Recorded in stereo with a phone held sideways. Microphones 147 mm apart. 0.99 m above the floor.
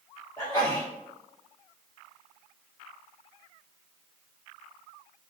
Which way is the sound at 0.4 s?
25° left (ahead or behind).